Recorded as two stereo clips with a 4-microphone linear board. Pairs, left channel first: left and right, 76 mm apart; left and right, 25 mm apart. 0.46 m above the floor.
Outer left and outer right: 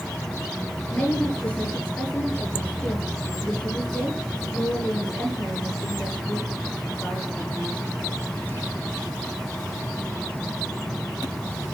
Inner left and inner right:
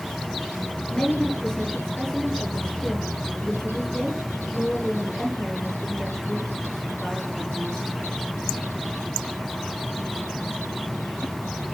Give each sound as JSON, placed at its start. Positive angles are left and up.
{"t": 0.9, "sound": "a woman speaking", "side_deg": 20, "distance_m": 7.5}